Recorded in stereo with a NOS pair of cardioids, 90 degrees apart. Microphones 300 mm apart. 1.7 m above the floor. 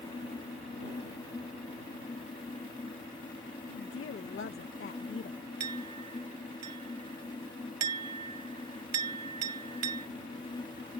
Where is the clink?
60° right.